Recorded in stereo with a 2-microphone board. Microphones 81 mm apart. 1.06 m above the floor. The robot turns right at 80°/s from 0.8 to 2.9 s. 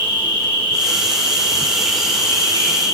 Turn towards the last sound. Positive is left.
turn(degrees=75)